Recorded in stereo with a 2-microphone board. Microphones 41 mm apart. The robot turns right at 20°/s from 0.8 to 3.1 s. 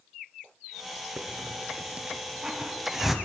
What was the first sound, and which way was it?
A hiss, 40° right (ahead or behind).